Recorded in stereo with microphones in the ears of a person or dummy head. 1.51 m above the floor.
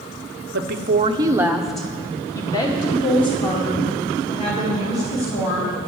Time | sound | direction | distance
0.5 | a woman speaking | 60° right (ahead or behind) | 0.6 m